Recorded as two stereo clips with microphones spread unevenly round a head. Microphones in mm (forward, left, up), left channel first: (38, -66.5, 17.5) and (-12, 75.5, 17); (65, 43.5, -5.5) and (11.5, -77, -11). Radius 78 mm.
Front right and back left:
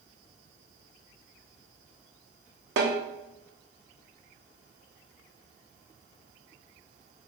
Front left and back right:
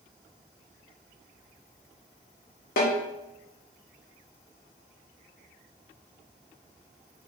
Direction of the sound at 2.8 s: 90° left.